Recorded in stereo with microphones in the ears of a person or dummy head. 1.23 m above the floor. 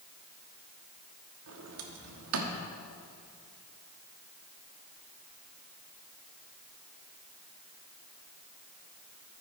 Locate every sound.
1.5 s a sliding door: 70° right (ahead or behind), 1.2 m